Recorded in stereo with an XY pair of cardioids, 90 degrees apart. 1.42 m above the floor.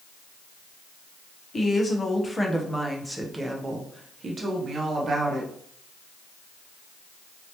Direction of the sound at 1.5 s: 40° left.